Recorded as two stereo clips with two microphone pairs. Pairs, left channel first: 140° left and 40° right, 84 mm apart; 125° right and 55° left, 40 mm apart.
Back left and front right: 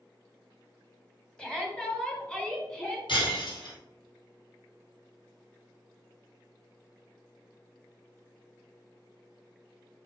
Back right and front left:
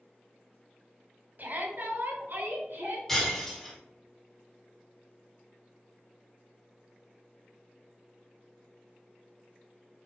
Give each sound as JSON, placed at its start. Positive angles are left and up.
{"t": 1.4, "sound": "a shout", "azimuth_deg": 65, "distance_m": 2.0}
{"t": 3.1, "sound": "breaking glass", "azimuth_deg": 150, "distance_m": 3.0}